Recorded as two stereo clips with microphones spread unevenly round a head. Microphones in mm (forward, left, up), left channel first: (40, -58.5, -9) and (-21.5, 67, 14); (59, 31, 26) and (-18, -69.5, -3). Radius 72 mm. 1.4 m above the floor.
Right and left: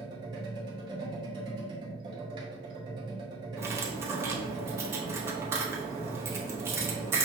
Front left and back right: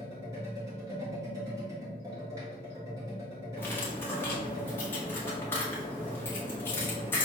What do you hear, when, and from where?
0.0 s a machine running: 160° left, 0.8 m
3.6 s cutlery clinking: 85° left, 0.7 m